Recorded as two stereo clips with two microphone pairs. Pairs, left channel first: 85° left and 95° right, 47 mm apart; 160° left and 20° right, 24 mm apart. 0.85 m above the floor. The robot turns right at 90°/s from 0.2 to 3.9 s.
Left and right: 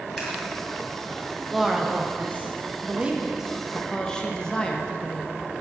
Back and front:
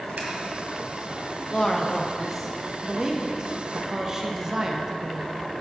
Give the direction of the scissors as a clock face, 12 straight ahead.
12 o'clock.